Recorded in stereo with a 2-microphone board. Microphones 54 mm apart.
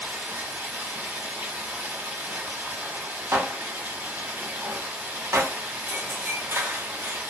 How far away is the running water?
About 1.3 m.